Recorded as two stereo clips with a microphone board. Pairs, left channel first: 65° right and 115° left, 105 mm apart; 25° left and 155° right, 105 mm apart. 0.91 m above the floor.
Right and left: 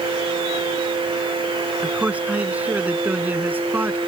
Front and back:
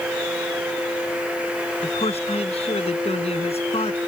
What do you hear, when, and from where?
1.8 s a man speaking: 35° left; by 4.0 s 40° left